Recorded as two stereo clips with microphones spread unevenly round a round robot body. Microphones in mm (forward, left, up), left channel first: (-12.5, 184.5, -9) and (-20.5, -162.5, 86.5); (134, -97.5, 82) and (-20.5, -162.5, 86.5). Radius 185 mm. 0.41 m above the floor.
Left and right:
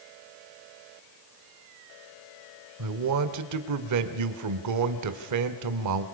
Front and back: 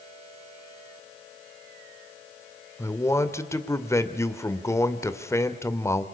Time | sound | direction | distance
2.8 | a man speaking | 50° right | 1.9 m